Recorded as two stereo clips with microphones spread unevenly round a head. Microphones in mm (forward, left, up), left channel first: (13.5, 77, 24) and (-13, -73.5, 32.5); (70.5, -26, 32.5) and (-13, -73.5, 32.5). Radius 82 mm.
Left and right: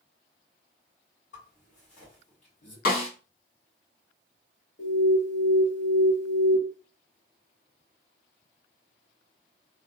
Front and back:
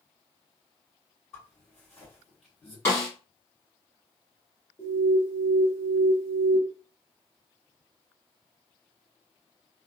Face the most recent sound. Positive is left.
turn(degrees=95)